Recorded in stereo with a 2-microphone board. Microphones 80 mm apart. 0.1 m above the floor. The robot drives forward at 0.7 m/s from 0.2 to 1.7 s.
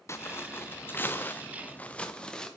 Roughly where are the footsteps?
Left.